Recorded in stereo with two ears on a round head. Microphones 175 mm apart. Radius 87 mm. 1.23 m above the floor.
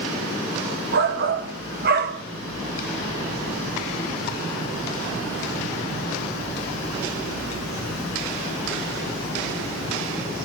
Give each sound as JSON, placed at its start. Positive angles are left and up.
{"t": 0.9, "sound": "a shout", "side_deg": -55, "distance_m": 1.9}